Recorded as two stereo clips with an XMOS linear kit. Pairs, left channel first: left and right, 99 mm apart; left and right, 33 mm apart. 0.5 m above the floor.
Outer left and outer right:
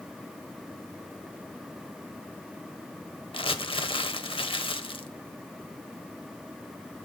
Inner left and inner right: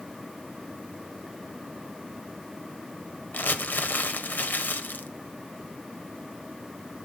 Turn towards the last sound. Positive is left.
turn(degrees=65)  # may be behind; listen again after turning